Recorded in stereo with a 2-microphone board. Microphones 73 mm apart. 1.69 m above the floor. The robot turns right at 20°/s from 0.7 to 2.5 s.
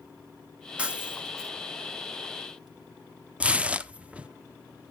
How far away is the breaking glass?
About 1.2 m.